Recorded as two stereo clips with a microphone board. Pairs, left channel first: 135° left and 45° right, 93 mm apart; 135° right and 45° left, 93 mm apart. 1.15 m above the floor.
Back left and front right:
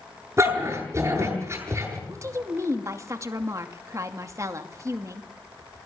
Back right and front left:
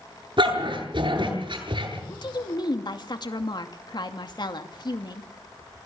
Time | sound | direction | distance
0.4 | a dog barking | 15° left | 8.5 m
2.1 | a woman speaking | 100° right | 2.5 m